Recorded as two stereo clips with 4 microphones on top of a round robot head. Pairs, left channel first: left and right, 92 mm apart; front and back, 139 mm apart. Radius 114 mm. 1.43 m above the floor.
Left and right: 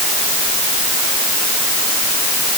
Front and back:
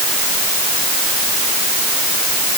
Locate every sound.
Only background noise.